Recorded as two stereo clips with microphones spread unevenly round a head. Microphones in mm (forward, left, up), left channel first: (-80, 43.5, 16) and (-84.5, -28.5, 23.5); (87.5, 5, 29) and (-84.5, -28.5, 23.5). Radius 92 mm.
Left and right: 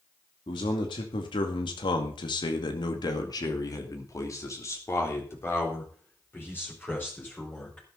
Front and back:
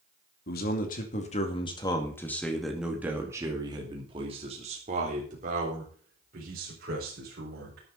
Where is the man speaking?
50° left, 2.5 m; by 7.9 s 155° left, 5.5 m.